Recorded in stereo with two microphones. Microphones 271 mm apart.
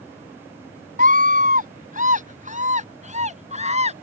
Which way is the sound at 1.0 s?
30° right (ahead or behind).